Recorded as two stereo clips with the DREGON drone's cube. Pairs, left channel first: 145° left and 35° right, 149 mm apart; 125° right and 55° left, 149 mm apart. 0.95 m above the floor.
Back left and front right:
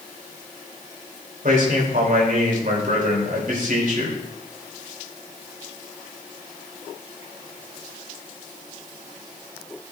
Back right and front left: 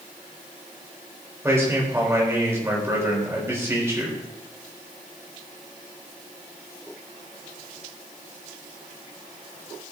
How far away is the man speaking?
About 4 m.